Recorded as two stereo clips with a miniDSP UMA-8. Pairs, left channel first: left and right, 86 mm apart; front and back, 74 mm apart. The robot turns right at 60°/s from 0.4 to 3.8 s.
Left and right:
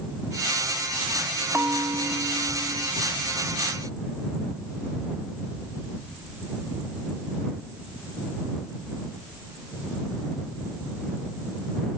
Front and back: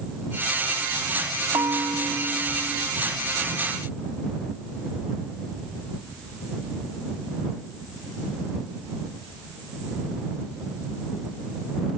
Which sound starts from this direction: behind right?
A bell, at 1.5 s.